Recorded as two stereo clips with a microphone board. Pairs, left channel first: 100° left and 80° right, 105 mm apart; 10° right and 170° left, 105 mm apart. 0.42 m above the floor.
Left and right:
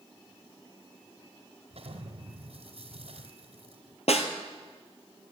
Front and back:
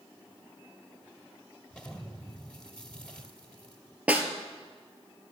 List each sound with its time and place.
1.7 s an explosion: 95° right, 2 m
4.1 s a snare drum: 95° left, 1.6 m